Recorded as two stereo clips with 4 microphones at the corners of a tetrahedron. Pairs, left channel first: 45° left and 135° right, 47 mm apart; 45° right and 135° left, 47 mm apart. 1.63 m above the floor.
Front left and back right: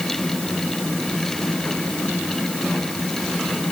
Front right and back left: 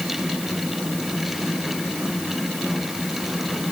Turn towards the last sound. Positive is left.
No sound to turn to.